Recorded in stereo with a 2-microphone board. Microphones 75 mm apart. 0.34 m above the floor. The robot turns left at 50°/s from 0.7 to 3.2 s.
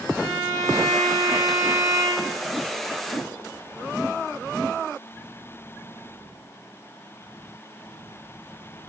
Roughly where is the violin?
Behind right.